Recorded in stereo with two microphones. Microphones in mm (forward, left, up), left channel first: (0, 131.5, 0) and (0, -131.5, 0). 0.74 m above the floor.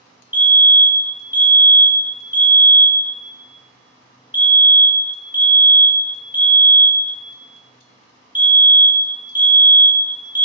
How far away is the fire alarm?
About 1.6 m.